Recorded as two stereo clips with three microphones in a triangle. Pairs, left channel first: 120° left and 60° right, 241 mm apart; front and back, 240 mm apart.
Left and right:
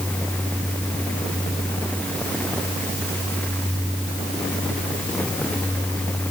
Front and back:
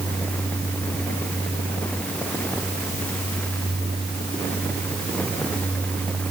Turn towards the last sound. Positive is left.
No sound to turn to.